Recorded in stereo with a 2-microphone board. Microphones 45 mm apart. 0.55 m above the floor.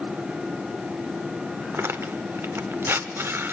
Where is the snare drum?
No snare drum in this recording.